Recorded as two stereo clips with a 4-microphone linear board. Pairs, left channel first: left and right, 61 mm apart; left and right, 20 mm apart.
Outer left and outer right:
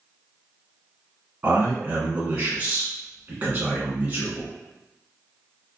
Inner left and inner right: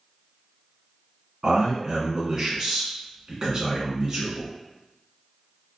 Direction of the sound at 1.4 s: 25° right (ahead or behind).